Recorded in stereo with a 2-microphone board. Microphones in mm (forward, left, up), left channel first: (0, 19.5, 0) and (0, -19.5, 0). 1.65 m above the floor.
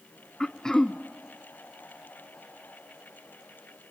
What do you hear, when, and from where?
0.4 s throat clearing: 15° left (ahead or behind), 0.7 m